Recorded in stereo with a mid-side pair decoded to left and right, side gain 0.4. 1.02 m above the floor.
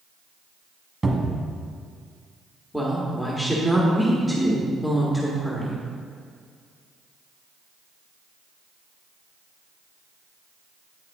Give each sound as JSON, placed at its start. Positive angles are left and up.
{"t": 1.0, "sound": "a cupboard door", "azimuth_deg": -20, "distance_m": 1.4}
{"t": 2.7, "sound": "a woman speaking", "azimuth_deg": 10, "distance_m": 1.7}